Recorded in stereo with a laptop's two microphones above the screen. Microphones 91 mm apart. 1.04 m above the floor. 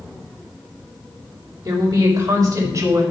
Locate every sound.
1.6 s a woman speaking: 50° right (ahead or behind), 4.5 m; by 3.0 s 40° right (ahead or behind), 5.5 m